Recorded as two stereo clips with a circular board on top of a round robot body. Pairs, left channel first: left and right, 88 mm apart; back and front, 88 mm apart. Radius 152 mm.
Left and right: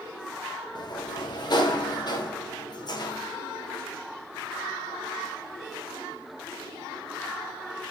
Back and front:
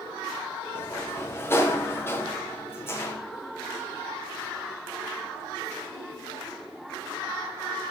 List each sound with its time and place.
0.8 s a sliding door: 120° left, 1.3 m